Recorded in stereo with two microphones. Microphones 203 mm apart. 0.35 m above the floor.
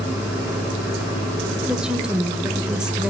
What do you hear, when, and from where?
1.7 s a woman speaking: 5° right (ahead or behind), 1.1 m